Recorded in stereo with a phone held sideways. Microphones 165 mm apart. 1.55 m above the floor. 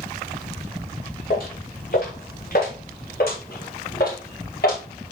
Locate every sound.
1.3 s footsteps: 65° left (ahead or behind), 4 m; by 4.8 s 75° left (ahead or behind), 6 m